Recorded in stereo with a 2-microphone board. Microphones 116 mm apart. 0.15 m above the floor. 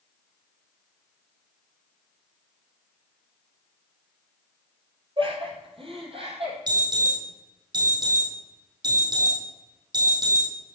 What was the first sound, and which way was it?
Laughter, 50° right (ahead or behind).